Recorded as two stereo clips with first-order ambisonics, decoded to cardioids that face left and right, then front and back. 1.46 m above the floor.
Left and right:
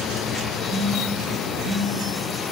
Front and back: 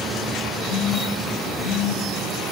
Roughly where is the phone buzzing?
Ahead.